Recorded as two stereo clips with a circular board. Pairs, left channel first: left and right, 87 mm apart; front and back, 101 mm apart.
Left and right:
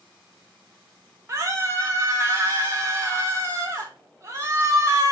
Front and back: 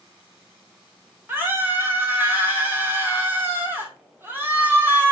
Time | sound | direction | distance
1.3 | a scream | 125° right | 1.2 m